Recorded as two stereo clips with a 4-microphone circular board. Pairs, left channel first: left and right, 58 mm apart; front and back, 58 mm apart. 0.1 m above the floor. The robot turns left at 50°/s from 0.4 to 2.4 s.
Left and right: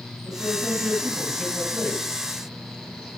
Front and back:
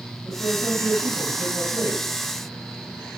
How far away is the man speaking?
About 2.5 m.